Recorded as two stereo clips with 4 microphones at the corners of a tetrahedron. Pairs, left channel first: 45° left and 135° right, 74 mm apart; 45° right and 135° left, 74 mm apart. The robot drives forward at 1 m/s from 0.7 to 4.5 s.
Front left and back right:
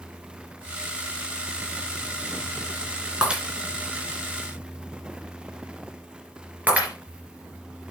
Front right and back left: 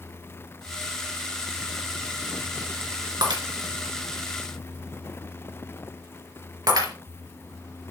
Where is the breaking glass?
150° left, 3 m; by 6.9 s 155° left, 4 m.